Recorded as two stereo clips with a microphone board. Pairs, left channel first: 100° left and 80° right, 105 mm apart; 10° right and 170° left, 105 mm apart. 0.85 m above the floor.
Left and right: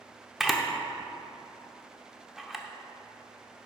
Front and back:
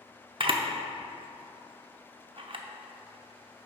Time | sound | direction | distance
0.4 | a camera shutter | 165° right | 0.6 m